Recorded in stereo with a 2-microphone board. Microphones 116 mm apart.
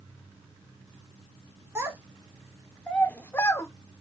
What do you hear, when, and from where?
1.8 s a child speaking: 20° right (ahead or behind), 0.9 m; by 3.7 s 25° left (ahead or behind), 1.0 m